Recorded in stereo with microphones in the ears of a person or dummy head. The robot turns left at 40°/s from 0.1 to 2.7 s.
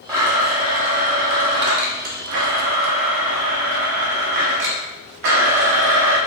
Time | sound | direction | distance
0.1 | a blender | 10° right | 0.7 m